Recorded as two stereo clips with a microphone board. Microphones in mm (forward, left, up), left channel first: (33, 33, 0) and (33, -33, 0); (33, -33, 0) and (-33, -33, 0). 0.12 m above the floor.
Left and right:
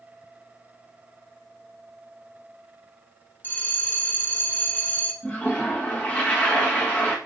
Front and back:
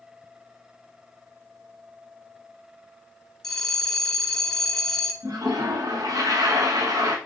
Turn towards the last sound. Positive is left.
turn(degrees=160)